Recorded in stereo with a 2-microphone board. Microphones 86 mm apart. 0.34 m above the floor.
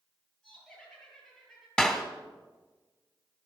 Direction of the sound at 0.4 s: 10° left (ahead or behind).